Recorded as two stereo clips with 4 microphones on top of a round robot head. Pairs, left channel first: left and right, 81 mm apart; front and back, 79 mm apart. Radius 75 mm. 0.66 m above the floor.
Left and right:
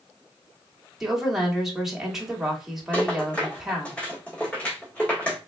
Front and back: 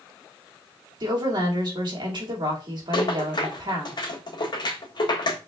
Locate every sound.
1.0 s a woman speaking: 175° right, 2.0 m
2.9 s a rattle: 15° left, 1.6 m